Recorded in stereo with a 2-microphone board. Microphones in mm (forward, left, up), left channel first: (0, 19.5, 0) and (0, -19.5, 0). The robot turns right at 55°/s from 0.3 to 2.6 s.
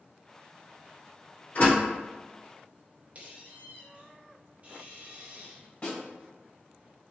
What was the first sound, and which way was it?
A door slam, 60° left (ahead or behind).